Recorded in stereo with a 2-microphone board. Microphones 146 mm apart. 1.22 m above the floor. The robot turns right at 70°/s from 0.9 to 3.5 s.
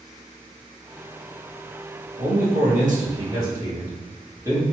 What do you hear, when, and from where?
2.2 s a man speaking: 115° right, 1.6 m; by 4.6 s 20° right, 1.6 m